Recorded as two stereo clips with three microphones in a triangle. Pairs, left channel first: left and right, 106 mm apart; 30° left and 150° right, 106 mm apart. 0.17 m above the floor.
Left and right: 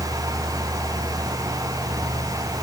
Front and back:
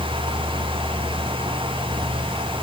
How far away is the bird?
I don't hear a bird.